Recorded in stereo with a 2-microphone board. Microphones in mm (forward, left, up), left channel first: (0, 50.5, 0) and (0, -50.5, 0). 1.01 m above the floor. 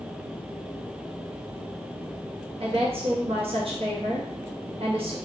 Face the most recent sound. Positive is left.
turn(degrees=-70)  # may be behind; listen again after turning